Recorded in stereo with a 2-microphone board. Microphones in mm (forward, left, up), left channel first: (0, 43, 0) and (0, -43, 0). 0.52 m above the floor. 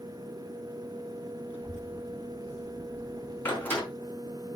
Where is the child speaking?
30° left (ahead or behind), 3 m; by 3.9 s 40° left (ahead or behind), 1.9 m.